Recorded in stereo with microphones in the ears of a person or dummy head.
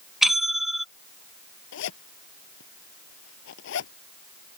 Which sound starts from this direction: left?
A zipper, at 1.7 s.